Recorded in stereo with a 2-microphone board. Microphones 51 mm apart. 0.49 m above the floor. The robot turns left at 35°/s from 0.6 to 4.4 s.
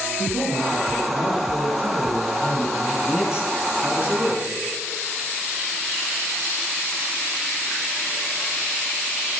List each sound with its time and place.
0.2 s a man speaking: 5° right, 8 m; by 2.9 s 85° right, 8 m
3.0 s a man speaking: 10° right, 5 m; by 4.6 s 55° right, 5 m